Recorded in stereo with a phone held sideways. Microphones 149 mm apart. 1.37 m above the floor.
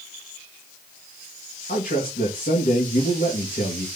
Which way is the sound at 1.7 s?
85° left.